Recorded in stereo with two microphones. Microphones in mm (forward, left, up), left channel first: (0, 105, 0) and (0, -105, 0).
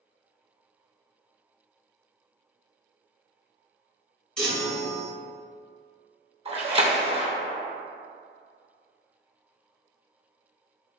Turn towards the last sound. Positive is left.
turn(degrees=-30)  # may be behind; listen again after turning